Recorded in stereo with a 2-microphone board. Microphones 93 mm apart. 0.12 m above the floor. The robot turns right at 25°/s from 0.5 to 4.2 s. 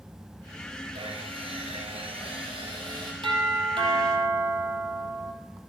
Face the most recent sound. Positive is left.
turn(degrees=-65)  # may be behind; listen again after turning